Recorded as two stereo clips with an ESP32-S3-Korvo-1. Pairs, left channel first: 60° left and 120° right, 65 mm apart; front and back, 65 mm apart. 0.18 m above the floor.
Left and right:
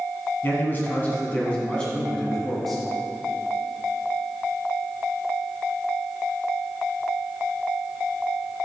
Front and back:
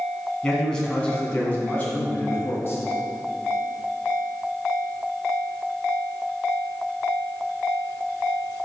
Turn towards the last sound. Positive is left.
turn(degrees=-25)